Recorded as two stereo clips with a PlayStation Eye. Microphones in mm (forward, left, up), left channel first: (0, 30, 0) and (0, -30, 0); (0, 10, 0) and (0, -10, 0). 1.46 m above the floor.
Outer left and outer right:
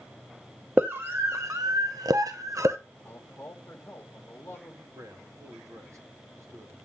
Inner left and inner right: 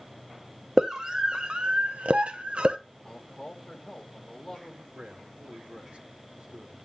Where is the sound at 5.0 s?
60° right (ahead or behind), 2.5 m.